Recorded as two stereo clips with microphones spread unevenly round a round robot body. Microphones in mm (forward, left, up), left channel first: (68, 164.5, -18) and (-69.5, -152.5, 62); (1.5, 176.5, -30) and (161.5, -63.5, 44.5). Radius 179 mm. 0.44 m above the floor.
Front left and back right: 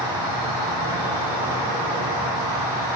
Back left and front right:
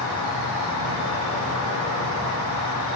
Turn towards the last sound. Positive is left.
turn(degrees=155)